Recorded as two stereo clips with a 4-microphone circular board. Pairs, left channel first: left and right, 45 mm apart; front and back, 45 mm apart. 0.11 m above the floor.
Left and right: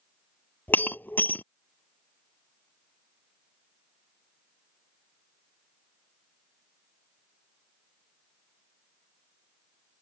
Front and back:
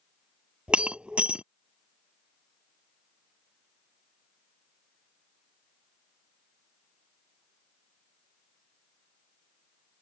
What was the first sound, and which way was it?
Breaking glass, 120° left.